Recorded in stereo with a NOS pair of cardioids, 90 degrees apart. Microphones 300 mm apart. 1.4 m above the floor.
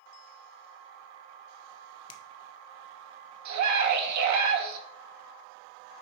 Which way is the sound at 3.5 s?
70° right.